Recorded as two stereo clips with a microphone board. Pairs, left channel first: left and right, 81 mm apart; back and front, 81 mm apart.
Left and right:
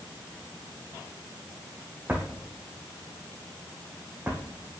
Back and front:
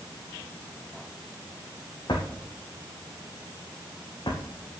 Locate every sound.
2.1 s a drawer: 160° right, 3 m